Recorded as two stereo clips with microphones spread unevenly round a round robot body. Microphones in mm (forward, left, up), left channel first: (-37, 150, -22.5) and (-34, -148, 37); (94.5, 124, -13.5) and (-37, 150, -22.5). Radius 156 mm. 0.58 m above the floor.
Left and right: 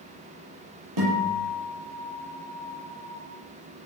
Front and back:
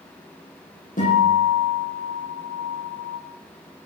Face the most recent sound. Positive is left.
turn(degrees=-70)